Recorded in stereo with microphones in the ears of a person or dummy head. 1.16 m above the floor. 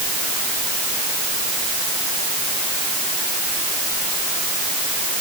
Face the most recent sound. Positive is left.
No sound to turn to.